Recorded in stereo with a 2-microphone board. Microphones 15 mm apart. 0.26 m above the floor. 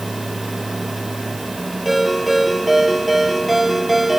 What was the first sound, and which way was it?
A ringtone, centre (ahead or behind).